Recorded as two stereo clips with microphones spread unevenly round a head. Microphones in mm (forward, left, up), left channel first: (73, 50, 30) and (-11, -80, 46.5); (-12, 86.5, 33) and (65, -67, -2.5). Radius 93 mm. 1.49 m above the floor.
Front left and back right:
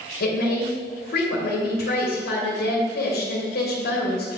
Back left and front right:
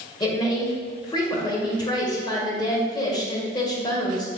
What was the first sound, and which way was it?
A woman speaking, 50° left.